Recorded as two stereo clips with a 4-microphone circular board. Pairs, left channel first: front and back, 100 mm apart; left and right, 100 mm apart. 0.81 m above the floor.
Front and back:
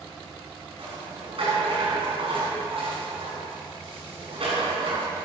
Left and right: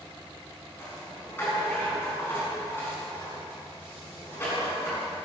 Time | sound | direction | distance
0.8 | a rattle | 160° left | 6 m